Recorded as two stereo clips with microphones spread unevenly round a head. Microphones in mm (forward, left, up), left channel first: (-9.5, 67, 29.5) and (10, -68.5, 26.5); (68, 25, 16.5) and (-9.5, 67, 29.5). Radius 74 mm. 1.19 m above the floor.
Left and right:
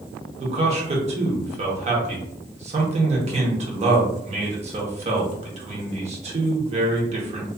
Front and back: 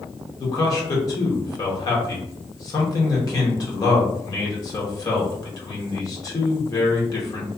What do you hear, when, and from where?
0.4 s a man speaking: 55° right, 0.9 m